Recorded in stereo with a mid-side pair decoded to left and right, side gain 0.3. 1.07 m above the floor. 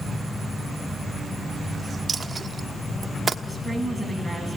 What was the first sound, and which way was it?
A dropped coin, 50° right.